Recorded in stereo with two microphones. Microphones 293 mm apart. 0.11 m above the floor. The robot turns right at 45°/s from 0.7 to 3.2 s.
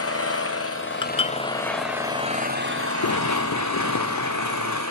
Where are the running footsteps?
90° left, 0.8 m; by 4.8 s 70° left (ahead or behind), 2.5 m.